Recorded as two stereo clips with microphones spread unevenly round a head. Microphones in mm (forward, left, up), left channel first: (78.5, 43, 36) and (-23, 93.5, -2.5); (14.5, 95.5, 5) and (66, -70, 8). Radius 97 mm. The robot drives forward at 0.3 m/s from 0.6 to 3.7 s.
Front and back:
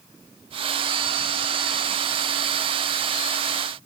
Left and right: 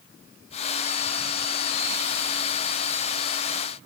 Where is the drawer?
I don't hear a drawer.